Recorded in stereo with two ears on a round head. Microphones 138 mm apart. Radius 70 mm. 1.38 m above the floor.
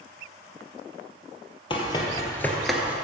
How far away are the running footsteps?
About 2 m.